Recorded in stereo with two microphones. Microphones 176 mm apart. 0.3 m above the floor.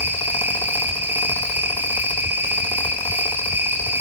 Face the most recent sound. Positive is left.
turn(degrees=-10)  # may be behind; listen again after turning